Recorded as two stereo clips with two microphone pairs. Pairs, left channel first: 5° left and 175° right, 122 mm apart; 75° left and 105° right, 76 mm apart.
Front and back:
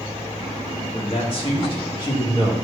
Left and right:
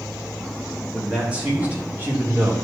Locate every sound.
0.9 s a man speaking: 25° right, 2.5 m; by 2.5 s 50° right, 2.5 m